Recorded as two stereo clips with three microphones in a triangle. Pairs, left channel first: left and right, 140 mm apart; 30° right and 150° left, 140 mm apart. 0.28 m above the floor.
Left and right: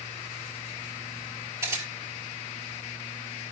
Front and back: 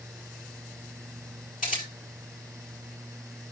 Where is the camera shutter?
20° right, 6 m.